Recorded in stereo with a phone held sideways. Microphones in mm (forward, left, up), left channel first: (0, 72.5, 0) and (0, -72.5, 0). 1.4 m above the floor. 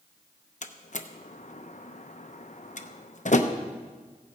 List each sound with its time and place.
0.6 s a door slam: 55° left (ahead or behind), 0.7 m